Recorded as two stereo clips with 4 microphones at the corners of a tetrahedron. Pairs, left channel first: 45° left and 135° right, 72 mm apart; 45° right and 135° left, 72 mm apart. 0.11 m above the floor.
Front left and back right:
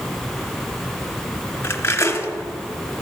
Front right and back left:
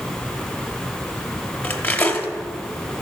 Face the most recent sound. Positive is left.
turn(degrees=10)